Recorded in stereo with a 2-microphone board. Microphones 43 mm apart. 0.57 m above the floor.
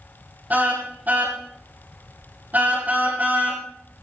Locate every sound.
0.5 s a car horn: 40° right (ahead or behind), 9.5 m